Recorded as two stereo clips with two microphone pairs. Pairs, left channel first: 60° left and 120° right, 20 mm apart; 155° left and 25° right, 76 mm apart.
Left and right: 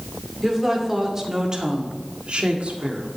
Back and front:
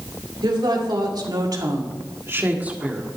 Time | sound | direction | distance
0.4 | a woman speaking | 35° right | 2 m